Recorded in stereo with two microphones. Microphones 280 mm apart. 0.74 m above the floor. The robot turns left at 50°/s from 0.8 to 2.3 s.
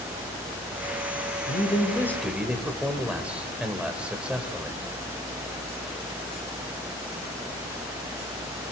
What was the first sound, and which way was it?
A man speaking, 40° left.